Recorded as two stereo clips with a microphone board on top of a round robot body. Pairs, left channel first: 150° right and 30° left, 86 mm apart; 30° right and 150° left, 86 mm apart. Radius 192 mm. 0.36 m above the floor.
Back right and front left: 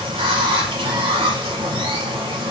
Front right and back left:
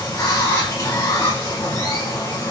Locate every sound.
0.0 s running water: 25° left, 0.8 m